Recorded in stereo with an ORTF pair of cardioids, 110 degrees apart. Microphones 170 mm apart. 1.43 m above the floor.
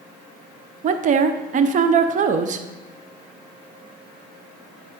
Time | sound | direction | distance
0.8 | a woman speaking | 50° right | 0.7 m